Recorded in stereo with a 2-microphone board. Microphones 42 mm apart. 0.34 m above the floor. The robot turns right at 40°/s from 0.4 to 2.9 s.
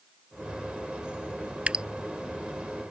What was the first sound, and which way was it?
Dripping, 25° right (ahead or behind).